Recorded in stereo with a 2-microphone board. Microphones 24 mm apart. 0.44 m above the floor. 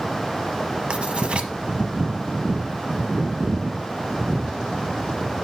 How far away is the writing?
About 0.9 m.